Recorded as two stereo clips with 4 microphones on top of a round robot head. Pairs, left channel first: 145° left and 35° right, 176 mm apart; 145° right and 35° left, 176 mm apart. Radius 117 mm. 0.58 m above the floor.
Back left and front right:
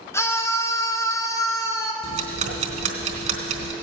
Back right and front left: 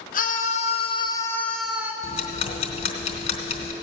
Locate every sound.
0.1 s a scream: 145° right, 1.7 m; by 1.9 s 95° left, 1.3 m
2.0 s ticking: 90° right, 1.3 m